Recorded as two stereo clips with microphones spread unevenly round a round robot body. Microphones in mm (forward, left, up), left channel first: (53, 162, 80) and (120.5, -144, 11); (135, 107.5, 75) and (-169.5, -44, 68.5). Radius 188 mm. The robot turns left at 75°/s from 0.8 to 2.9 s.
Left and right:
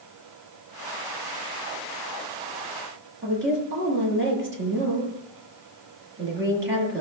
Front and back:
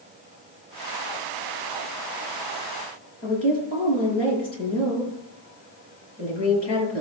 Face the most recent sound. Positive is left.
turn(degrees=-25)